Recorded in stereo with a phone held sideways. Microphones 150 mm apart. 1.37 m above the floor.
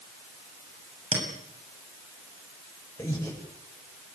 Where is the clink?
40° right (ahead or behind), 7 m.